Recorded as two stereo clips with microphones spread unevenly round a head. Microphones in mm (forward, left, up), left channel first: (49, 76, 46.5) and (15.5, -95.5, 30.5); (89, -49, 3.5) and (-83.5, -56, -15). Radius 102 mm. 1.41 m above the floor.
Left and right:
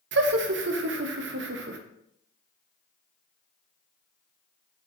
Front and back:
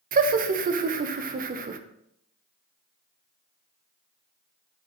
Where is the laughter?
135° right, 0.6 m.